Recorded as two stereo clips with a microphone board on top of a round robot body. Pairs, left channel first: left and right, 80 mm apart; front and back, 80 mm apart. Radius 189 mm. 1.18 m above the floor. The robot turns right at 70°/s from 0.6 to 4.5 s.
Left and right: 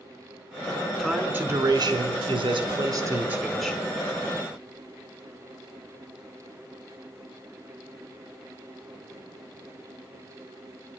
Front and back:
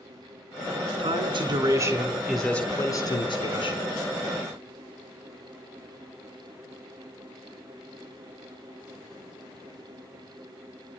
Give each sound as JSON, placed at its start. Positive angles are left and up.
{"t": 1.0, "sound": "a man speaking", "azimuth_deg": 170, "distance_m": 4.0}